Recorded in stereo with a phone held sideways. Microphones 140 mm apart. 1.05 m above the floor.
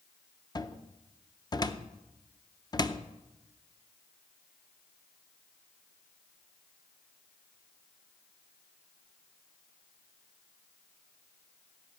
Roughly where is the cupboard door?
Left.